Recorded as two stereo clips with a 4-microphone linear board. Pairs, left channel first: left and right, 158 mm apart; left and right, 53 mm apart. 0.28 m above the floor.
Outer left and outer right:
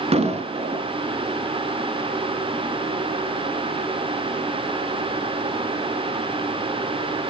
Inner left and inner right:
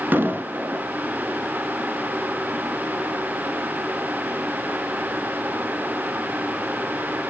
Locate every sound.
0.1 s an explosion: 40° right (ahead or behind), 0.8 m